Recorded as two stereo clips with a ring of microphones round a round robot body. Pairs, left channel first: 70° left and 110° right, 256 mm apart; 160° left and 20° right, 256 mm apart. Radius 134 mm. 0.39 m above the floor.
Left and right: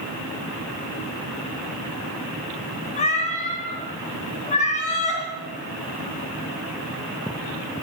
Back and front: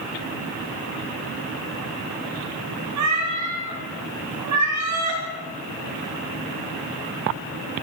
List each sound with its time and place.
3.0 s a cat meowing: 5° left, 3.5 m